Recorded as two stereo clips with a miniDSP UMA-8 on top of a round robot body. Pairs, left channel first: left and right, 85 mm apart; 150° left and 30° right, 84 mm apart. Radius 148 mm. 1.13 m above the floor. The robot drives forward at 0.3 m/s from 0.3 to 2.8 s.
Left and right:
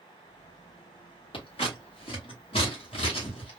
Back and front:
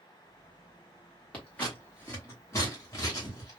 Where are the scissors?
75° left, 1.2 m; by 3.6 s 95° left, 1.2 m.